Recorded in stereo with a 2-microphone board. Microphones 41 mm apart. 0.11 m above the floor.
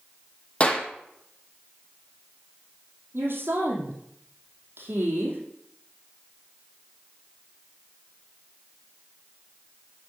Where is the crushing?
I don't hear crushing.